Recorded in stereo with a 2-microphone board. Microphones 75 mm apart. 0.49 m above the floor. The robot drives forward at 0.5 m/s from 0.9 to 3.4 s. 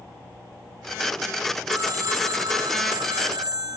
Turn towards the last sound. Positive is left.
turn(degrees=-70)  # may be behind; listen again after turning